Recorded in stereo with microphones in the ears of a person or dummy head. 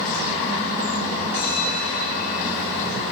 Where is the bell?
65° left (ahead or behind), 5 m.